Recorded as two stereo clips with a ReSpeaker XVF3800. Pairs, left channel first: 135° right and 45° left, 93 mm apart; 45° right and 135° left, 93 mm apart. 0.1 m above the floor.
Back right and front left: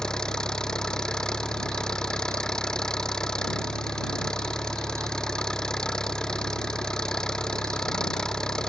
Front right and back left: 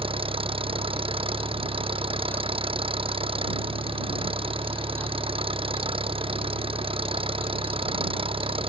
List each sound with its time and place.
0.0 s an engine running: 140° left